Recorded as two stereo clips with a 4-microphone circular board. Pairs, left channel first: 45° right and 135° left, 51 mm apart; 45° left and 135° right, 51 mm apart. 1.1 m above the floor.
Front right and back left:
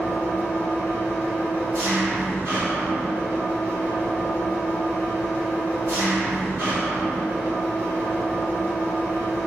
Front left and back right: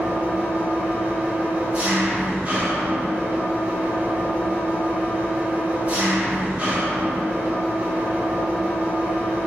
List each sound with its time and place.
0.0 s an engine running: 160° left, 1.5 m